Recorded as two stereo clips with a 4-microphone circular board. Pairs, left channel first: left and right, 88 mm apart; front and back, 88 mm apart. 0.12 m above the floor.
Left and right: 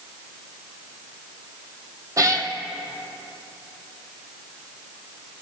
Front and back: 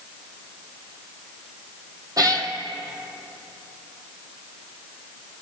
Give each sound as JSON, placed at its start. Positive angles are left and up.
{"t": 2.2, "sound": "a cat meowing", "azimuth_deg": -140, "distance_m": 1.6}